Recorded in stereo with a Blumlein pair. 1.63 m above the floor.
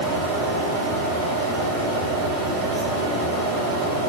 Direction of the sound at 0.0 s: 30° right.